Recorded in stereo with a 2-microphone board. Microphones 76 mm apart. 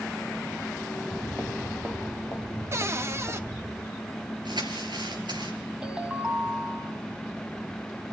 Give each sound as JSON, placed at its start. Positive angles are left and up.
{"t": 1.0, "sound": "footsteps", "side_deg": -25, "distance_m": 5.0}
{"t": 2.7, "sound": "a cupboard door", "side_deg": -35, "distance_m": 1.0}
{"t": 4.5, "sound": "crumpling", "side_deg": -75, "distance_m": 3.0}
{"t": 5.8, "sound": "a ringtone", "side_deg": -10, "distance_m": 2.5}